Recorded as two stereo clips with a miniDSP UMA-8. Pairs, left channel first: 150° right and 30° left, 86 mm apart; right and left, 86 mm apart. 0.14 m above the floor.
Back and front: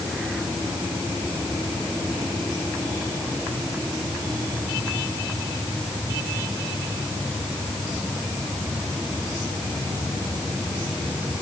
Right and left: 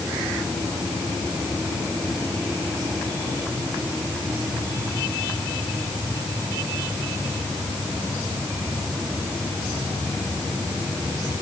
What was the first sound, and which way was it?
Only background noise.